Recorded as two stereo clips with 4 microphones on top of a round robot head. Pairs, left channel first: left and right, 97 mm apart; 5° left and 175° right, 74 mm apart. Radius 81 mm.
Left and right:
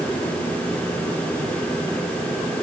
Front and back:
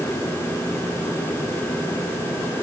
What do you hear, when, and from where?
Only background noise.